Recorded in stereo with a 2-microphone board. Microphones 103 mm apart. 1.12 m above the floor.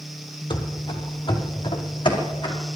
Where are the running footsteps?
50° left (ahead or behind), 1.6 m; by 2.5 s 45° left (ahead or behind), 3.5 m.